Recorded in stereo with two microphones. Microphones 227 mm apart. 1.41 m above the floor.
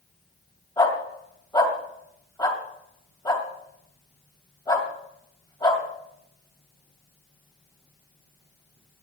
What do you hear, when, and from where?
0.8 s a dog barking: 20° left (ahead or behind), 2 m